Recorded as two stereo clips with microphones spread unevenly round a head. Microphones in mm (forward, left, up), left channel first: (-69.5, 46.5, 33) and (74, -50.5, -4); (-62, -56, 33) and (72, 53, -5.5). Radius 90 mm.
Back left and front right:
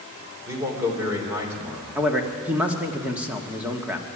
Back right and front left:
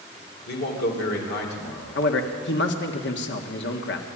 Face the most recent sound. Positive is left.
turn(degrees=-110)